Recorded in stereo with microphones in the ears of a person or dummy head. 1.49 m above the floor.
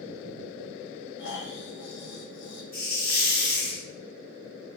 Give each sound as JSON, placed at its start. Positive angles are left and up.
{"t": 1.2, "sound": "snoring", "side_deg": 65, "distance_m": 1.1}
{"t": 2.7, "sound": "a hiss", "side_deg": 20, "distance_m": 2.5}